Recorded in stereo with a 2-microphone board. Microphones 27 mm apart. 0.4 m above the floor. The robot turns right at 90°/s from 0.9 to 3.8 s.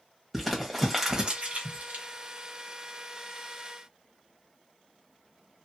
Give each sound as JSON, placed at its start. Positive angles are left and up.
{"t": 0.3, "sound": "crumpling", "side_deg": -5, "distance_m": 1.0}